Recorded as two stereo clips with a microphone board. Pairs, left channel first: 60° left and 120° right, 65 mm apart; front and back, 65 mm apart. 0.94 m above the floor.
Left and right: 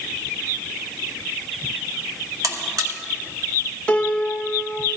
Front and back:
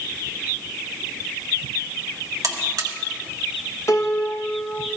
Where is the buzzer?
150° right, 1.4 m.